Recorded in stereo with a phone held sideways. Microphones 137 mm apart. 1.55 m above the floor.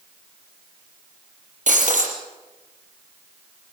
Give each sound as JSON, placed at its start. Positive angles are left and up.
{"t": 1.7, "sound": "breaking glass", "side_deg": -70, "distance_m": 5.5}